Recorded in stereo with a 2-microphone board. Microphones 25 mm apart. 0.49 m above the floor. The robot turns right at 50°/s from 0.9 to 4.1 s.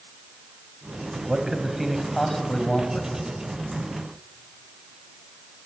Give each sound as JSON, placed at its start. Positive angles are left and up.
{"t": 1.2, "sound": "a man speaking", "azimuth_deg": -35, "distance_m": 3.0}